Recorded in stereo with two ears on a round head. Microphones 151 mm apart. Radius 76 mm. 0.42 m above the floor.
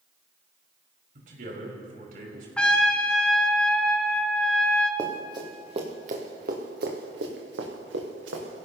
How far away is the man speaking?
About 5 m.